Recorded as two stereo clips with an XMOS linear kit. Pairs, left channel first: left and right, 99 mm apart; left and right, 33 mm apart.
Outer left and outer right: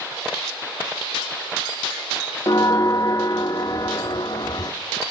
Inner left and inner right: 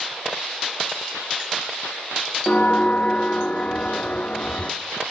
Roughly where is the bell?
Left.